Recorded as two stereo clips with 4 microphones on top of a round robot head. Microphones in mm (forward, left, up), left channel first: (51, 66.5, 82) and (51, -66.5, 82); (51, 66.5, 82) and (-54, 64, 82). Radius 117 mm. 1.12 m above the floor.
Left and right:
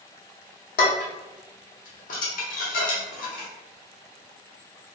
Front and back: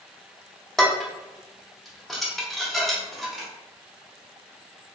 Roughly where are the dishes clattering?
Left.